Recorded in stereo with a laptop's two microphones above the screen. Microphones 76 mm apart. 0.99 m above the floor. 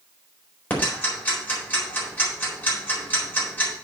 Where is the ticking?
20° left (ahead or behind), 4 m.